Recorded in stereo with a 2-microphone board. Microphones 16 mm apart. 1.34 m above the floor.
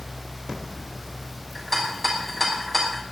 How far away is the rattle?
About 3 m.